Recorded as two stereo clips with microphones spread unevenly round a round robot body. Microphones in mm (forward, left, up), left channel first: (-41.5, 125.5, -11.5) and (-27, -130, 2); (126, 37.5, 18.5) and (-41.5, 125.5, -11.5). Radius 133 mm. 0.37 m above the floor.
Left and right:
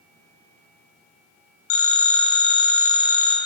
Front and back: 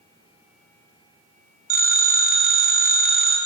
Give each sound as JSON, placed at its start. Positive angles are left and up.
{"t": 1.7, "sound": "a phone ringing", "azimuth_deg": 125, "distance_m": 2.5}